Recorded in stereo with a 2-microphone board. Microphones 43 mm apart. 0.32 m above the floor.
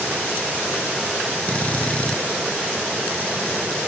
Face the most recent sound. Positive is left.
turn(degrees=30)  # may be behind; listen again after turning